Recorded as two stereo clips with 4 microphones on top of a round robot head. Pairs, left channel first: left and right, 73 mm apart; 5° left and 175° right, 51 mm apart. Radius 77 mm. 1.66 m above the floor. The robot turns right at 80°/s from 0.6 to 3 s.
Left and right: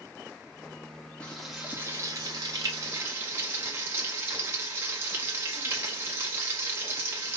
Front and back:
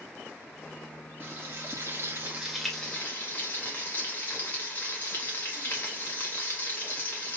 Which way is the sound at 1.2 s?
165° left.